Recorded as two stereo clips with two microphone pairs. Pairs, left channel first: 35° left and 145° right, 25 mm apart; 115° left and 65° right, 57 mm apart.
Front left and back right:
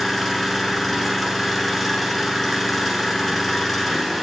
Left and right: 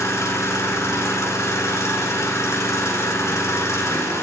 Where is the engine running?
120° left, 1.6 m.